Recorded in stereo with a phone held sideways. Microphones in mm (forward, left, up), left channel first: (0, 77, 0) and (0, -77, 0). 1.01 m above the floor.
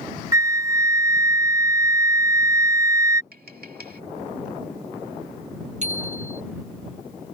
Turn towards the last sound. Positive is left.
turn(degrees=-50)  # may be behind; listen again after turning